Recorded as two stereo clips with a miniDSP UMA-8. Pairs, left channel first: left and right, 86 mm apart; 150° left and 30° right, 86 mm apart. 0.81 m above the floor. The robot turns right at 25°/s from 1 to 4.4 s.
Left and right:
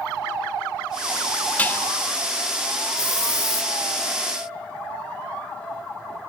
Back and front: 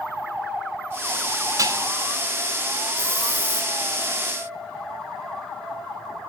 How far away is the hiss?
About 1.9 m.